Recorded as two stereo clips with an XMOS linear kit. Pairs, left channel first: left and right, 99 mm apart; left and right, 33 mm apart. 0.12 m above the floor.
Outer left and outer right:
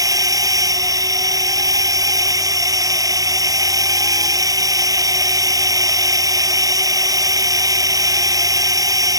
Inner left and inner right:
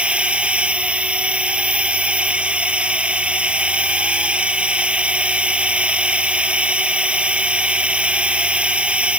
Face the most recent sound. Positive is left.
turn(degrees=-35)  # may be behind; listen again after turning